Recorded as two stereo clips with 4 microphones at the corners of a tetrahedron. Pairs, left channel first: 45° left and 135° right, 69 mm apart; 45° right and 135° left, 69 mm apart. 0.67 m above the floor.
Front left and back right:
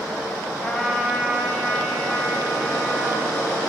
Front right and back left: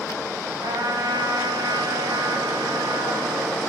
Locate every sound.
0.6 s a trumpet: 120° left, 2.5 m